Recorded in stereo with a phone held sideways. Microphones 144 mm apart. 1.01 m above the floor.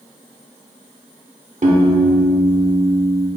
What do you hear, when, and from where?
1.6 s a piano: 60° right (ahead or behind), 1.1 m